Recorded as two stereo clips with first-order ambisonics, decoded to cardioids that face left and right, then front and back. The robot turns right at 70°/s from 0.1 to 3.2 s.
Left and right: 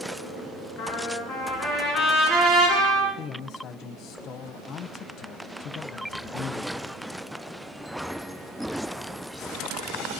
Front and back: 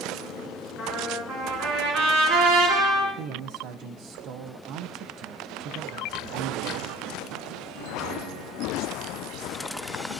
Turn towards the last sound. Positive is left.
turn(degrees=145)